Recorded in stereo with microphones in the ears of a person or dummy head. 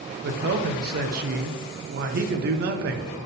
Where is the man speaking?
50° right (ahead or behind), 0.9 m.